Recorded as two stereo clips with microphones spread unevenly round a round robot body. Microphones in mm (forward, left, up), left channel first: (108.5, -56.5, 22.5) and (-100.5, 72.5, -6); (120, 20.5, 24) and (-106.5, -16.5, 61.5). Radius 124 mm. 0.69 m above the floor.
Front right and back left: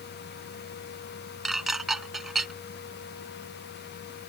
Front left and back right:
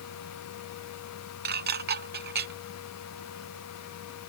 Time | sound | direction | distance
1.4 | dishes clattering | 120° right | ?